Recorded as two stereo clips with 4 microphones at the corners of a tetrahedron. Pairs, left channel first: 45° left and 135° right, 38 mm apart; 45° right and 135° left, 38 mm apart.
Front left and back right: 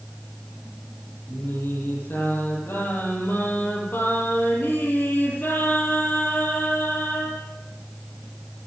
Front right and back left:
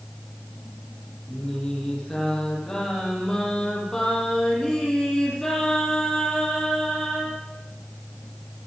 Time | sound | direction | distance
1.3 | singing | 35° left | 9 m